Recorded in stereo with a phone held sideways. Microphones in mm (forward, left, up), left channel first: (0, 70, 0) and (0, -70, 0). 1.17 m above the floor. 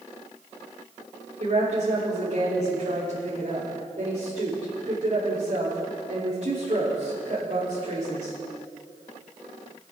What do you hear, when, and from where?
1.4 s a woman speaking: 60° right (ahead or behind), 3 m